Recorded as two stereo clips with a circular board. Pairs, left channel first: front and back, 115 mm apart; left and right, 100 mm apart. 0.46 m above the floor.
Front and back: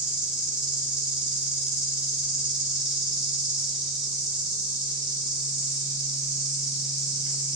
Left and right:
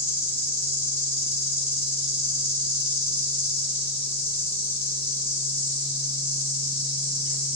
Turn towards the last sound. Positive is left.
turn(degrees=100)